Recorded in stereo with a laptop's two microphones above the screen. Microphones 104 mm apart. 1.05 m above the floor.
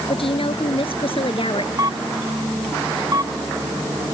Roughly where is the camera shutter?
Right.